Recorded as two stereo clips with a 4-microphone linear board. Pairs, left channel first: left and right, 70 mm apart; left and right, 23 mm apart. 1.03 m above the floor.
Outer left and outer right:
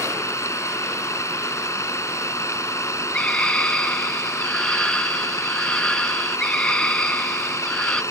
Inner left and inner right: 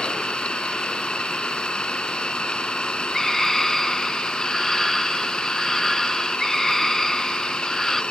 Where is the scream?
15° left (ahead or behind).